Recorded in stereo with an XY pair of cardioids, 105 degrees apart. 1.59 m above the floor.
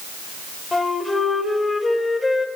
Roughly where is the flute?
Ahead left.